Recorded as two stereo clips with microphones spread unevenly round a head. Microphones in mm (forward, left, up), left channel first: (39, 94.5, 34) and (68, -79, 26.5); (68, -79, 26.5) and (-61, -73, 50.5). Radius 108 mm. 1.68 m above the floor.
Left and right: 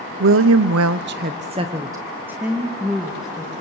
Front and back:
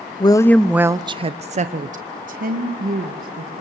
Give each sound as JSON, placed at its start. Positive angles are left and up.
{"t": 0.2, "sound": "a woman speaking", "azimuth_deg": -65, "distance_m": 0.8}